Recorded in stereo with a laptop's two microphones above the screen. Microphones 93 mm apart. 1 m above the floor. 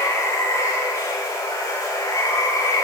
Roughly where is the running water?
Left.